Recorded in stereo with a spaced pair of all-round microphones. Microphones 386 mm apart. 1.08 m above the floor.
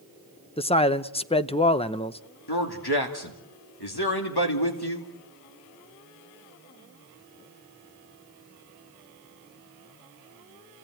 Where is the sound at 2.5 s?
80° left, 2.5 m.